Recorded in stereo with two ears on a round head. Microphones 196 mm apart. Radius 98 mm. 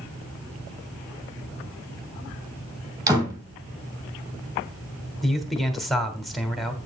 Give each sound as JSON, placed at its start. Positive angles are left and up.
{"t": 3.1, "sound": "a door slam", "side_deg": -15, "distance_m": 3.0}
{"t": 5.2, "sound": "a man speaking", "side_deg": 0, "distance_m": 1.5}